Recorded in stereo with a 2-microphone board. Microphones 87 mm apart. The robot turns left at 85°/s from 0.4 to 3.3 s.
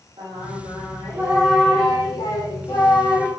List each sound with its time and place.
0.2 s singing: 90° right, 7.5 m; by 3.3 s 25° left, 7.5 m